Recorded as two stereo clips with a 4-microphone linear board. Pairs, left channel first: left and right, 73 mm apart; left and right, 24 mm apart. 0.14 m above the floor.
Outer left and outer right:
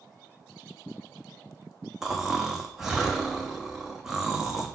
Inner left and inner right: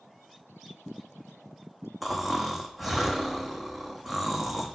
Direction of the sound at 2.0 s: 5° right (ahead or behind).